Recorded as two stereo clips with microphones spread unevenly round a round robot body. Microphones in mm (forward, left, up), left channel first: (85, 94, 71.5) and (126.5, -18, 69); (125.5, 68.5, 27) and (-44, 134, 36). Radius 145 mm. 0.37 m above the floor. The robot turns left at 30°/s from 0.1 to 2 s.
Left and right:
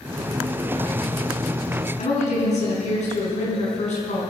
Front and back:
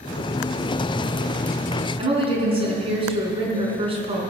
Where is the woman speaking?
100° left, 5 m.